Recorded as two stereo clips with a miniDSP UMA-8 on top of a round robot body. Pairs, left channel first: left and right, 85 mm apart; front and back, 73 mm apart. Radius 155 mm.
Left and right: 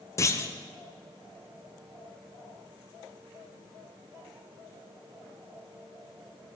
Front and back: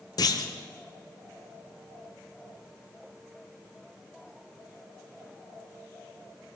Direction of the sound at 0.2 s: 35° left.